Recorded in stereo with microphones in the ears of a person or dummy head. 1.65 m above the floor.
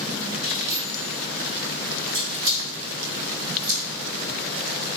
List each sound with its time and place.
0.4 s keys jangling: 60° right (ahead or behind), 2 m